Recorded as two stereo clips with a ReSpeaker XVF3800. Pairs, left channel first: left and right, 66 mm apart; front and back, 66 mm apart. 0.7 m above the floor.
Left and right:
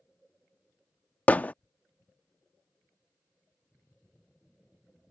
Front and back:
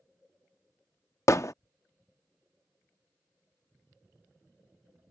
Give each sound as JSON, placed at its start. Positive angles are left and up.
{"t": 1.3, "sound": "hammering", "azimuth_deg": 25}